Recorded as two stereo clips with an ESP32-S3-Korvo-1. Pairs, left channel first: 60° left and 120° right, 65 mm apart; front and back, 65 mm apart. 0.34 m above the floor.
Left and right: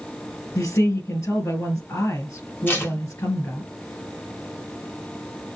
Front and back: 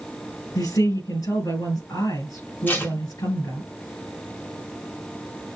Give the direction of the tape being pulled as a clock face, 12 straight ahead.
11 o'clock.